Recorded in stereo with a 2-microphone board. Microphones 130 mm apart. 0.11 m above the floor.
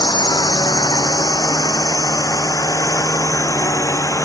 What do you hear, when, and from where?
0.0 s a drone: 30° left (ahead or behind); by 4.2 s 20° left (ahead or behind)